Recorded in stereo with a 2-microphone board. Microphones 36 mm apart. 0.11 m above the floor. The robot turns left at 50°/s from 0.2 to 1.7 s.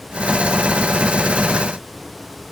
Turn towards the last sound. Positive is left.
No sound to turn to.